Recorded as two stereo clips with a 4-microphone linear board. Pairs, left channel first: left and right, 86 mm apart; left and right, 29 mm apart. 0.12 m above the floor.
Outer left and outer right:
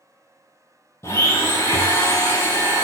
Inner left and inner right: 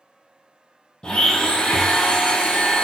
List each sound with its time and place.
1.0 s a blender: 35° left (ahead or behind), 0.6 m